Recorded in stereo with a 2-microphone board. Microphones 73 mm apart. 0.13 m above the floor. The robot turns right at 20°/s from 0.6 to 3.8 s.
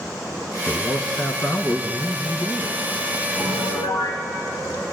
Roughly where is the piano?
Left.